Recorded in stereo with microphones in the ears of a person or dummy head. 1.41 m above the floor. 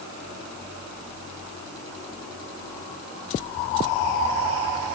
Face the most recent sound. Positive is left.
No sound to turn to.